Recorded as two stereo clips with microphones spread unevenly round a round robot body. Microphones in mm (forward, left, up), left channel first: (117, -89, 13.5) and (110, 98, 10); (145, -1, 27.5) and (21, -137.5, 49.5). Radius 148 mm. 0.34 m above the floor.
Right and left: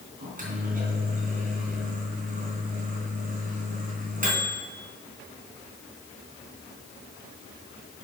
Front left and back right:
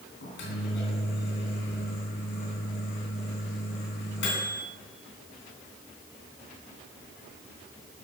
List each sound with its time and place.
0.2 s a microwave: 50° left, 3.5 m